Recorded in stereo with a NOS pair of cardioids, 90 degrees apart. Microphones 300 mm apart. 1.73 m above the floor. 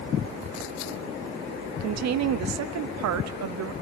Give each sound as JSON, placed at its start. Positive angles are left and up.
{"t": 1.8, "sound": "a woman speaking", "azimuth_deg": -60, "distance_m": 0.8}